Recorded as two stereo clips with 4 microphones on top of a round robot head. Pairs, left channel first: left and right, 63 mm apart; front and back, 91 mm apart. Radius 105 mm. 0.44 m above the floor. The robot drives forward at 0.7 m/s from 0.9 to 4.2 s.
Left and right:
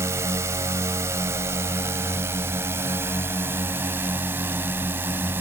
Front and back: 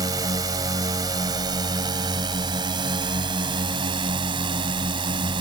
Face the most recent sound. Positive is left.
turn(degrees=-145)